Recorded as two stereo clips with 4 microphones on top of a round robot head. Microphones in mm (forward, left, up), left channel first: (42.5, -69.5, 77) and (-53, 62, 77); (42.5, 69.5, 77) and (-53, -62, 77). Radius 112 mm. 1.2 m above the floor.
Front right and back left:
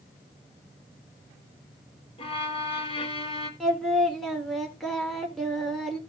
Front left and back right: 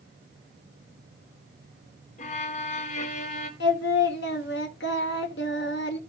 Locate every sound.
2.2 s a violin: 5° left, 1.1 m
3.6 s singing: 35° left, 1.4 m